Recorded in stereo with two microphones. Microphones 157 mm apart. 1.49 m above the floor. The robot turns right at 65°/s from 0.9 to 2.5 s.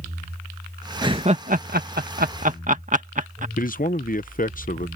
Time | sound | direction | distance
1.0 | laughter | 25° right (ahead or behind) | ?
3.6 | a man speaking | 60° left (ahead or behind) | ?